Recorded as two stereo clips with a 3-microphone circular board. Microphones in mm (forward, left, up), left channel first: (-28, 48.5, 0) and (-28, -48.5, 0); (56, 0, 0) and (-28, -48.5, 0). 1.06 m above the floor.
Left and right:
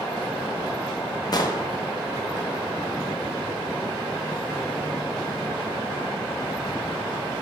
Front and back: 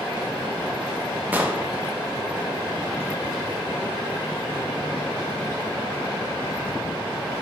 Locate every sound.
1.3 s an explosion: 140° left, 0.6 m